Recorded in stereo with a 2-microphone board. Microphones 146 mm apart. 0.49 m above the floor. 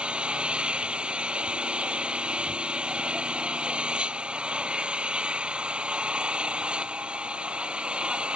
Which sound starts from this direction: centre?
An engine running, at 0.0 s.